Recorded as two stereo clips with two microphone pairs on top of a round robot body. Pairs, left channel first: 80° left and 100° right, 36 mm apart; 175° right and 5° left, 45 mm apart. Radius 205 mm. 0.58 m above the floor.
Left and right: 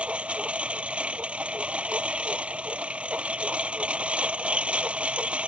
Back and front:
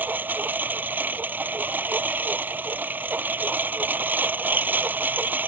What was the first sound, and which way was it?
A lawn mower, 40° right.